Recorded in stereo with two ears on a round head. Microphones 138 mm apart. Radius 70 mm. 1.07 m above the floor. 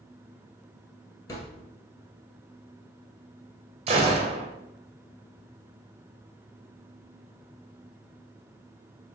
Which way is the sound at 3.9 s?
35° right (ahead or behind).